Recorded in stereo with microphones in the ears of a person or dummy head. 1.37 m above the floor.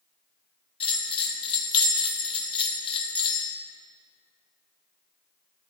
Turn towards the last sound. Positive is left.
turn(degrees=30)  # may be behind; listen again after turning